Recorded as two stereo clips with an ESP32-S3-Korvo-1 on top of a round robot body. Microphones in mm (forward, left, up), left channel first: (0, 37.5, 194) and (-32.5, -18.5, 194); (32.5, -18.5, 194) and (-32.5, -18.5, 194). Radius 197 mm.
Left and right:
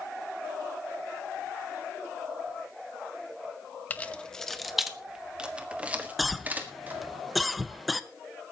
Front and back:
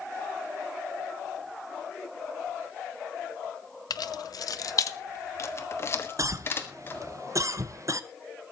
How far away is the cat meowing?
I don't hear a cat meowing.